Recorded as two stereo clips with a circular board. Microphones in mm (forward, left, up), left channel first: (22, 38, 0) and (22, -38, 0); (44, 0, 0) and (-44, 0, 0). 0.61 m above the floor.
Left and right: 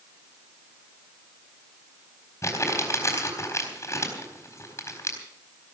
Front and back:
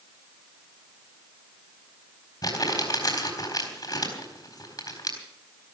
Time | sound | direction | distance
2.4 | crumpling | 40° left | 4 m